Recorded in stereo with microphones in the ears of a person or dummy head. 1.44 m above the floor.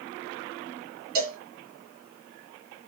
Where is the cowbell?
55° right (ahead or behind), 2.5 m.